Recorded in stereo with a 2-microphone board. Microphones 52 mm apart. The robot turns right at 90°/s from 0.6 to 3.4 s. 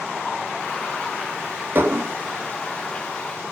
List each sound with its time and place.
1.8 s dishes clattering: 130° right, 1.9 m; by 2.1 s 100° right, 1.9 m